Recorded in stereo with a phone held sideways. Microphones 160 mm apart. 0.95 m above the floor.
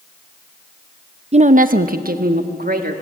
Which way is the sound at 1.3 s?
40° right (ahead or behind).